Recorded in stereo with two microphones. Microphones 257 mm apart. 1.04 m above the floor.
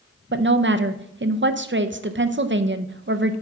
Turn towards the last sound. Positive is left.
turn(degrees=-45)  # may be behind; listen again after turning